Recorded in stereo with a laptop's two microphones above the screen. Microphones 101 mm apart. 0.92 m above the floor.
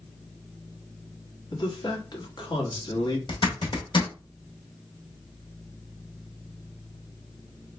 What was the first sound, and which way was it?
A man speaking, 45° left (ahead or behind).